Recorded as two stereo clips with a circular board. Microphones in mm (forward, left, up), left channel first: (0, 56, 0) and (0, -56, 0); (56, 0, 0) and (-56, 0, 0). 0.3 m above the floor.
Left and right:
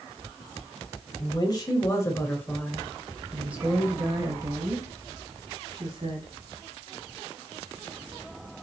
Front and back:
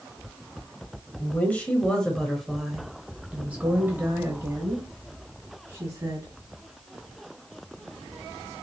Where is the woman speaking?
65° left, 1.3 m; by 6.3 s 120° right, 2.0 m.